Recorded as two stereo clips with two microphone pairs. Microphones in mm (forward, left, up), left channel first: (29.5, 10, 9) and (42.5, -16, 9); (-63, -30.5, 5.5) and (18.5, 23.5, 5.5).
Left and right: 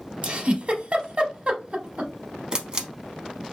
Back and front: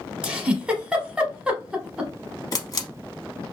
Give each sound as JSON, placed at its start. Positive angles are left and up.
{"t": 0.2, "sound": "a giggle", "azimuth_deg": -45, "distance_m": 0.7}
{"t": 2.5, "sound": "a camera shutter", "azimuth_deg": -110, "distance_m": 0.6}